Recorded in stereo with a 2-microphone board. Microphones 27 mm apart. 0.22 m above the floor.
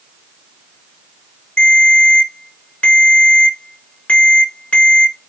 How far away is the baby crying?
No baby crying in this recording.